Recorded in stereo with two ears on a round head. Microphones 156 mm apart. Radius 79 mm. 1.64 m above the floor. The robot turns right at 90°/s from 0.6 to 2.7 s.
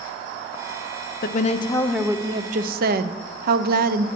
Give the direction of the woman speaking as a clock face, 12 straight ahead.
8 o'clock.